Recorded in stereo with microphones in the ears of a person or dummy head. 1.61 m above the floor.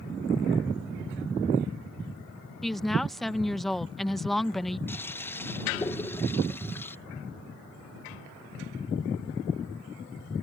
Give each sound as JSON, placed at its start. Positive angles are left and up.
{"t": 2.6, "sound": "a woman speaking", "side_deg": 5}
{"t": 4.9, "sound": "a toilet flushing", "side_deg": 15}